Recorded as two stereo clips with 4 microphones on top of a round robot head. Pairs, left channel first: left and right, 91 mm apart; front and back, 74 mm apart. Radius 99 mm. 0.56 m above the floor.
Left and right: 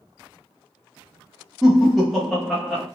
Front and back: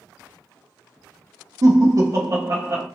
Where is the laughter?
Straight behind, 0.8 m.